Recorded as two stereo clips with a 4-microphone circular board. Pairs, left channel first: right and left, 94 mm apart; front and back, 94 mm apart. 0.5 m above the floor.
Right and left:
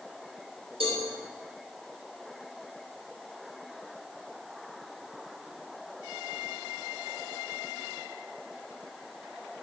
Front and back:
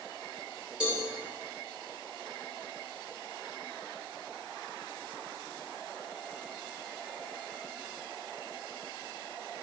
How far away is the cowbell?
About 4.5 m.